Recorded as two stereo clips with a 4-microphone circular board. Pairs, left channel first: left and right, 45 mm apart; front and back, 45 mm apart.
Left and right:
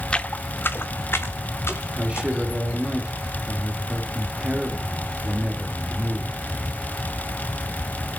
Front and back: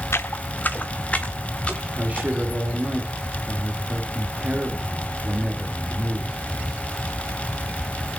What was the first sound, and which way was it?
Footsteps, 20° left.